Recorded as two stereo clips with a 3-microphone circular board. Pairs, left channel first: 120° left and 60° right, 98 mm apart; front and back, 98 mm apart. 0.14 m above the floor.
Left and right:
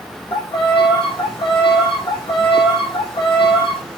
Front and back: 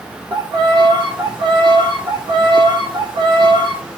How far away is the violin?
About 3.5 m.